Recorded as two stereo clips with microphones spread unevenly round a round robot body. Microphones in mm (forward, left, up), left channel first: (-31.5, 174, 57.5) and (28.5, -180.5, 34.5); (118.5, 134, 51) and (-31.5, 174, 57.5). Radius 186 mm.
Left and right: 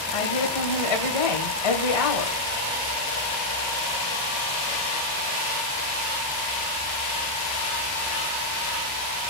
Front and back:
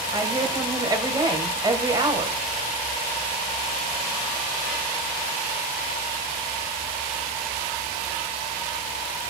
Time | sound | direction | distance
0.1 | a woman speaking | 100° left | 3 m